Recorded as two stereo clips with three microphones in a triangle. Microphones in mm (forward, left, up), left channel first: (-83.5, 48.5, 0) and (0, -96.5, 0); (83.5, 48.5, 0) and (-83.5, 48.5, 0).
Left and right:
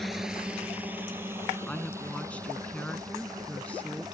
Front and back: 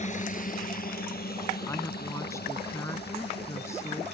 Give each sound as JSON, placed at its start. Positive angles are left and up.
{"t": 0.0, "sound": "a drone", "azimuth_deg": 30}
{"t": 1.7, "sound": "a woman speaking", "azimuth_deg": 50}